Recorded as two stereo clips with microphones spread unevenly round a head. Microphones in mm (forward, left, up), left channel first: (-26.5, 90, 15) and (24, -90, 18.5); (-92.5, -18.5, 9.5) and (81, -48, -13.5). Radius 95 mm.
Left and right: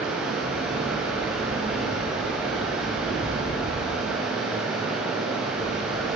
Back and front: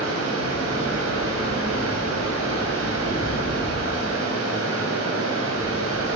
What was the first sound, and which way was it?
Running water, 10° left.